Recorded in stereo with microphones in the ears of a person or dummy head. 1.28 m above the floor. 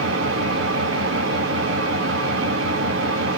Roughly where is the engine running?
Right.